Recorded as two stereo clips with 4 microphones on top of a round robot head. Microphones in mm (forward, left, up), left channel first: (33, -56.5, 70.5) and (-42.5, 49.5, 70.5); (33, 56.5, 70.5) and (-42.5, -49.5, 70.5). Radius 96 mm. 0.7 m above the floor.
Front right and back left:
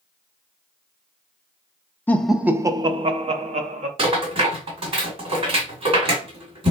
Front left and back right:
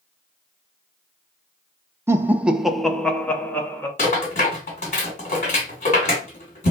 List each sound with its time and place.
2.1 s laughter: 105° right, 0.5 m; by 3.9 s 125° left, 1.0 m
4.0 s a rattle: 80° left, 2 m